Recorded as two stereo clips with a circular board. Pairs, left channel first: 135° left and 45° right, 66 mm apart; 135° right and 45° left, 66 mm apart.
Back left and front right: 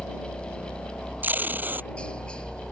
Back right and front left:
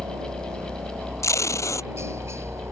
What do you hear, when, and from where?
0.0 s a helicopter: 70° left; by 2.7 s 65° left
1.2 s tape being pulled: 105° right